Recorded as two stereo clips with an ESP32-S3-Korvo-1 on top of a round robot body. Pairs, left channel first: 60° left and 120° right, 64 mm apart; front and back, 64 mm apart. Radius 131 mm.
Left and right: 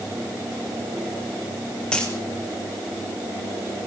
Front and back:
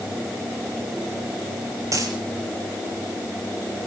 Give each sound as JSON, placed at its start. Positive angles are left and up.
{"t": 1.9, "sound": "a dropped coin", "azimuth_deg": 140, "distance_m": 4.0}